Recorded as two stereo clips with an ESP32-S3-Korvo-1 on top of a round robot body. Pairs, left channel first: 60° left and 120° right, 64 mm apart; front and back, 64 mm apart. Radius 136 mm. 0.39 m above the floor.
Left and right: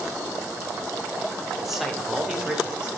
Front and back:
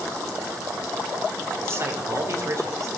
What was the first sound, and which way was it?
A man speaking, 155° left.